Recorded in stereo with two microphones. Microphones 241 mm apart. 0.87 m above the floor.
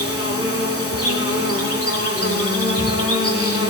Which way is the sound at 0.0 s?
75° left (ahead or behind).